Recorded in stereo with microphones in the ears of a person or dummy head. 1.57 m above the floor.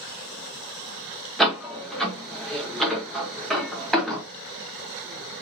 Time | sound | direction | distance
1.4 | a door slam | centre (ahead or behind) | 1.6 m